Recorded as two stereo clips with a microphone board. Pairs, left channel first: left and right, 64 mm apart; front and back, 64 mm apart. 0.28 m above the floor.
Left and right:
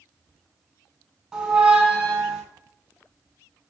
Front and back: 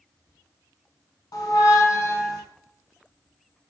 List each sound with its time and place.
1.3 s a squeak: 15° right, 0.5 m